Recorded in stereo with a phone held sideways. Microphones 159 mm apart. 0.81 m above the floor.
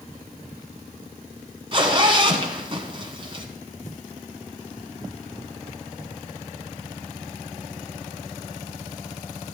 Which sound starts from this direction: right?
A zipper, at 1.7 s.